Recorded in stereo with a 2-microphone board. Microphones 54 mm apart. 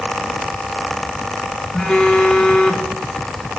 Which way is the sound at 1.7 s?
20° left (ahead or behind).